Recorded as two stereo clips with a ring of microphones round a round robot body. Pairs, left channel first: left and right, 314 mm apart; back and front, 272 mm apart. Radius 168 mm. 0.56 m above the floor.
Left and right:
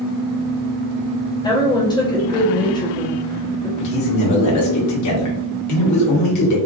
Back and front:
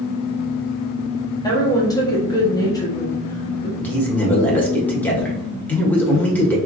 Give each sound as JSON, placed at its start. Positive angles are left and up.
{"t": 1.4, "sound": "a woman speaking", "azimuth_deg": 135, "distance_m": 1.0}
{"t": 3.8, "sound": "a man speaking", "azimuth_deg": 100, "distance_m": 1.5}